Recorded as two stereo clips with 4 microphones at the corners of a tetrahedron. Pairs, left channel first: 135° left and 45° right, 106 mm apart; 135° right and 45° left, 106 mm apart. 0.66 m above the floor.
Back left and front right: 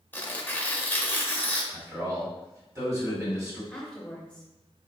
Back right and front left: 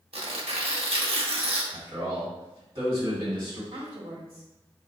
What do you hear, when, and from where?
0.1 s tearing paper: 65° left, 0.6 m
1.7 s a man speaking: 10° left, 1.6 m
3.7 s a woman speaking: 55° left, 1.2 m